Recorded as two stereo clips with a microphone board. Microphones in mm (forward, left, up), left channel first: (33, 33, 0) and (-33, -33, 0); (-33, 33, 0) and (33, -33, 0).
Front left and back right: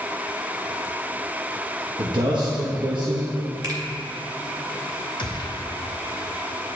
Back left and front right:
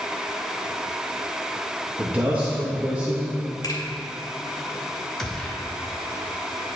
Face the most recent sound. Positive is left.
turn(degrees=50)